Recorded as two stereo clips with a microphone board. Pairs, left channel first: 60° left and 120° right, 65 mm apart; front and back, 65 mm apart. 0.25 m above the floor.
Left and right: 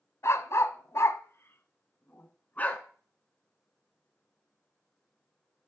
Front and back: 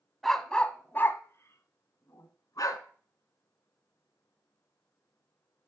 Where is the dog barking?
85° left, 0.8 m; by 2.8 s 5° right, 1.3 m.